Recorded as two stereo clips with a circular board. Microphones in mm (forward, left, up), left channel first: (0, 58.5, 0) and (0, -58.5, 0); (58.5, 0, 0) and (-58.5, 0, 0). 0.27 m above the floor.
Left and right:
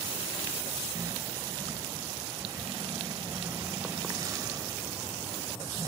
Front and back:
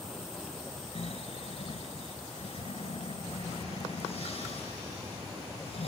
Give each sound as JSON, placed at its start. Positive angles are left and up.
{"t": 0.9, "sound": "snoring", "azimuth_deg": -30, "distance_m": 0.8}